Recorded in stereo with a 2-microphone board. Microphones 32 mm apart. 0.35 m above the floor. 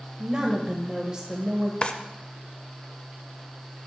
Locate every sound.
0.2 s a woman speaking: 25° right (ahead or behind), 1.1 m
1.8 s a drawer: 35° left (ahead or behind), 0.6 m